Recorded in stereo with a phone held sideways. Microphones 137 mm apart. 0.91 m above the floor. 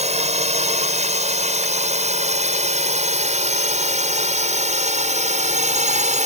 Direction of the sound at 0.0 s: 55° right (ahead or behind).